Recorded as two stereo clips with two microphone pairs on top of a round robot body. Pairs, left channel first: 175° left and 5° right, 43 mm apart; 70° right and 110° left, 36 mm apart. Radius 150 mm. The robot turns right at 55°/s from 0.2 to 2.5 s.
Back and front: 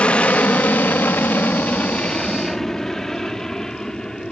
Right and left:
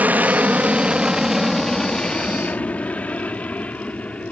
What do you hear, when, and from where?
0.0 s an aircraft: 135° left; by 4.3 s 115° right